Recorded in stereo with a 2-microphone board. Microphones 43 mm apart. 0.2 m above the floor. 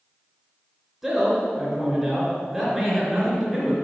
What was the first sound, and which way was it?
A man speaking, 10° right (ahead or behind).